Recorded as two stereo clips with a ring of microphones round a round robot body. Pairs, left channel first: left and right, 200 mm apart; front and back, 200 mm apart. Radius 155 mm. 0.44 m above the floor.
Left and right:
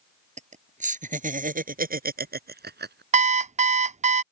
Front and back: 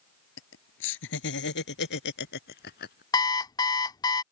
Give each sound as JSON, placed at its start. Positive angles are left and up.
{"t": 0.4, "sound": "laughter", "azimuth_deg": -35}
{"t": 3.1, "sound": "an alarm clock", "azimuth_deg": -60}